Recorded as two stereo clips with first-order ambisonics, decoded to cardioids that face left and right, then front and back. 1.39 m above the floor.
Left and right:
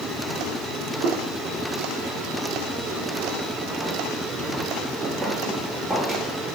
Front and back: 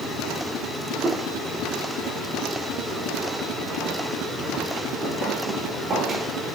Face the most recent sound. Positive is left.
turn(degrees=165)